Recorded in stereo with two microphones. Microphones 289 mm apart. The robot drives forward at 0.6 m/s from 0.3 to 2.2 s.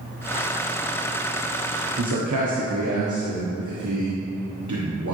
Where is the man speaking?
85° right, 0.9 m.